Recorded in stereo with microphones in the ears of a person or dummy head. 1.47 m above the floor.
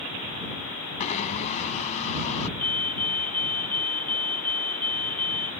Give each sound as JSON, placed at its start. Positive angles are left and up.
{"t": 1.0, "sound": "a blender", "side_deg": 45}
{"t": 2.6, "sound": "a fire alarm", "side_deg": 5}